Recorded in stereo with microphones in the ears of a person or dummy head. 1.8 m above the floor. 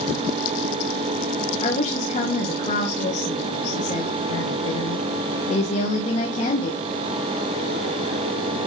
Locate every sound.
1.6 s a woman speaking: 40° left (ahead or behind), 2.5 m